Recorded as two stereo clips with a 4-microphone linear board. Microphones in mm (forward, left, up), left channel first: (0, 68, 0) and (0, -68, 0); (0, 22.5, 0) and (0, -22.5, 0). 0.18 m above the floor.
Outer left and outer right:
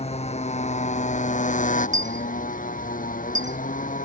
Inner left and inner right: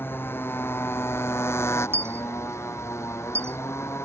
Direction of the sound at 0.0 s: 50° left (ahead or behind).